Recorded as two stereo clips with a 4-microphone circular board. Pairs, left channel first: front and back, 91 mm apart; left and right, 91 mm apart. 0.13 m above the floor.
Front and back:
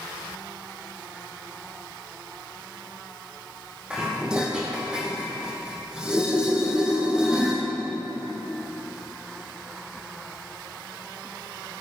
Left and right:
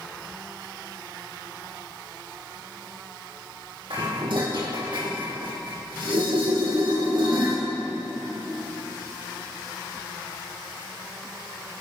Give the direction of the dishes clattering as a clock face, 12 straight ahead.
3 o'clock.